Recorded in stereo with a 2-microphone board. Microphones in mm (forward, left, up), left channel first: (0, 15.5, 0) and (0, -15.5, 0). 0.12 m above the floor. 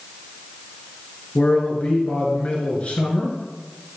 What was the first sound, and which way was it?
A man speaking, 40° left (ahead or behind).